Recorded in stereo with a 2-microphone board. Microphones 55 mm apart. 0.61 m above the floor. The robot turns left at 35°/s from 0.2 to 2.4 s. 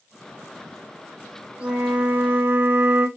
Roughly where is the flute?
Centre.